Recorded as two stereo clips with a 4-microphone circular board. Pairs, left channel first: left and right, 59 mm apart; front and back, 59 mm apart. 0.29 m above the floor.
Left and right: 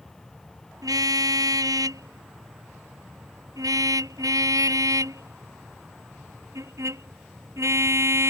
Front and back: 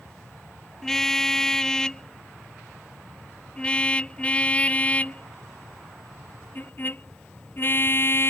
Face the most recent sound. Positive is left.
turn(degrees=-50)